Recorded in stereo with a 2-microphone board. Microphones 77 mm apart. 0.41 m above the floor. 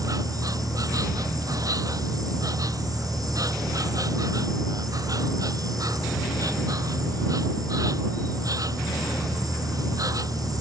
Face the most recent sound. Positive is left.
turn(degrees=-50)  # may be behind; listen again after turning